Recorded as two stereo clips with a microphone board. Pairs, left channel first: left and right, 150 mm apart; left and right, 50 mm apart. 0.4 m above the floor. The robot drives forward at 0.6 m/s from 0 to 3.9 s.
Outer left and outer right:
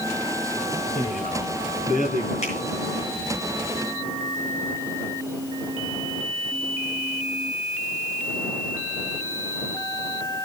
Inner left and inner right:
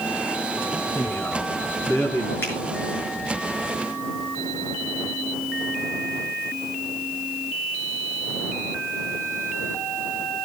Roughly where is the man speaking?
Left.